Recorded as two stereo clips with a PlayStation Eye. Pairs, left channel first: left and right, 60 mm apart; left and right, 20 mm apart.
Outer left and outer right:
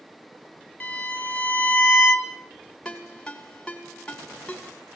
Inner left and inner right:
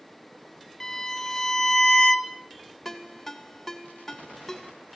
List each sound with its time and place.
0.8 s a violin: 25° left (ahead or behind), 0.8 m
2.9 s a ringtone: 10° left (ahead or behind), 2 m